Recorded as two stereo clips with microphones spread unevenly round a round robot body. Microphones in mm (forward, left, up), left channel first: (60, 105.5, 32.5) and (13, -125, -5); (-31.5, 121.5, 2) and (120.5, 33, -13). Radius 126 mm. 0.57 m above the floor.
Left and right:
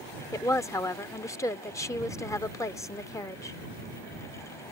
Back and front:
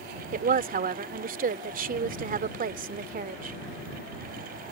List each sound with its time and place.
0.3 s a woman speaking: straight ahead